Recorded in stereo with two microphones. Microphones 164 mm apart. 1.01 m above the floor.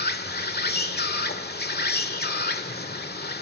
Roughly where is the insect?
Left.